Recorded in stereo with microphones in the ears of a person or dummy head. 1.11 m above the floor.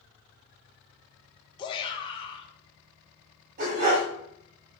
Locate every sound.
1.6 s a shout: 30° left (ahead or behind), 1.0 m
3.6 s a dog barking: 45° right (ahead or behind), 1.5 m